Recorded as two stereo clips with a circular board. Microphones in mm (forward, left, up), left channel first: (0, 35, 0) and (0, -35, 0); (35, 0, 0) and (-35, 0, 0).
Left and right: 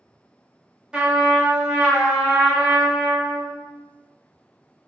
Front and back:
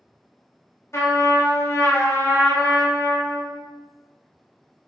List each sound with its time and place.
0.9 s a trumpet: 20° right, 0.7 m